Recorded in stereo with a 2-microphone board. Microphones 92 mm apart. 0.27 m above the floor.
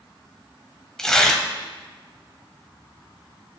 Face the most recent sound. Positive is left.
turn(degrees=5)  # may be behind; listen again after turning